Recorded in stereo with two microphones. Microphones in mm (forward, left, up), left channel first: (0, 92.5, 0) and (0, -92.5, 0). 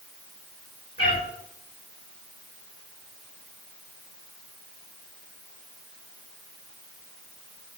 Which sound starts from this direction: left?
A cat meowing, at 1.0 s.